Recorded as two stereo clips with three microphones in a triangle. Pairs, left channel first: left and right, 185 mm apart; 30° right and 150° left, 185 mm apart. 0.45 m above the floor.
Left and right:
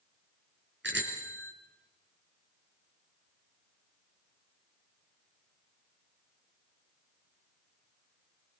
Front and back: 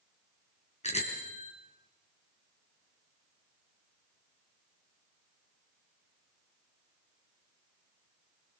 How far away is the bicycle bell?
About 4 m.